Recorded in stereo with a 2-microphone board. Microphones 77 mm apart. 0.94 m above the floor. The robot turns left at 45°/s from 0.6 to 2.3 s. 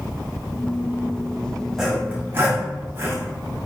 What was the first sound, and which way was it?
Sawing, 5° right (ahead or behind).